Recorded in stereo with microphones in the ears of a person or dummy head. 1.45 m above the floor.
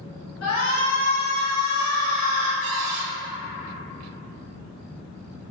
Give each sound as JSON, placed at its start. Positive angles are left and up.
{"t": 0.4, "sound": "a shout", "side_deg": 75, "distance_m": 1.1}
{"t": 2.6, "sound": "a cupboard door", "side_deg": -60, "distance_m": 0.7}